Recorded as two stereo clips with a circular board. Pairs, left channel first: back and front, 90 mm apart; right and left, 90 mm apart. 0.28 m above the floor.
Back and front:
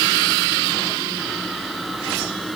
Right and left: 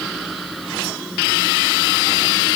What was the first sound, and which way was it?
Only background noise.